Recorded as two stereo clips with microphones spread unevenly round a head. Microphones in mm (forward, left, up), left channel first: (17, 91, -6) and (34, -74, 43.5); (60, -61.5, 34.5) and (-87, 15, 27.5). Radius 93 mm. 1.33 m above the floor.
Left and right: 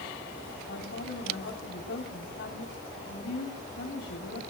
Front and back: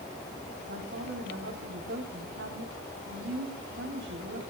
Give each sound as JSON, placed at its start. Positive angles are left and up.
{"t": 0.7, "sound": "a woman speaking", "azimuth_deg": 125, "distance_m": 4.0}